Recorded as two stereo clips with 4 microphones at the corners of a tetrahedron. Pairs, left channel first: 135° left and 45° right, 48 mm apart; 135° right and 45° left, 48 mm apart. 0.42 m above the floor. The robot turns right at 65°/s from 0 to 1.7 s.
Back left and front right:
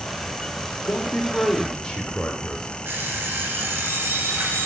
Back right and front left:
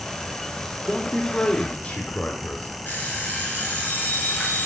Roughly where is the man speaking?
Behind left.